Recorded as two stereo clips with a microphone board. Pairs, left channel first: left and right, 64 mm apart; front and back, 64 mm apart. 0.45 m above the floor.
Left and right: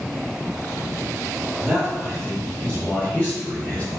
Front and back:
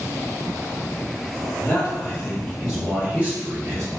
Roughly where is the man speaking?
Ahead.